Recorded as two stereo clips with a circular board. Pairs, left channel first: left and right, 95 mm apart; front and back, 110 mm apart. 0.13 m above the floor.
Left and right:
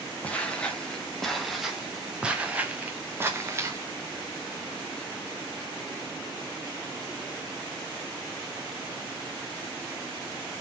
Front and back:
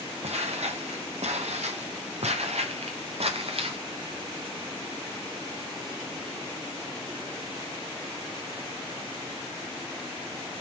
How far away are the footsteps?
About 3 m.